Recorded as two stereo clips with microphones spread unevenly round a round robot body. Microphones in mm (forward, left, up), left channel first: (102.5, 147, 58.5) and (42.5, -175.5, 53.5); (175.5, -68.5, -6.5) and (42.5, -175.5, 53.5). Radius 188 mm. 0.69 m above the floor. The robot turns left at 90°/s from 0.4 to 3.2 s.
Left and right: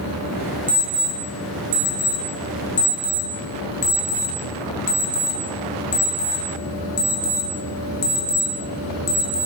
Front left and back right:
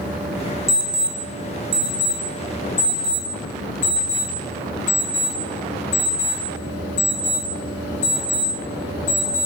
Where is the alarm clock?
50° right, 1.7 m; by 9.5 s 80° left, 1.7 m.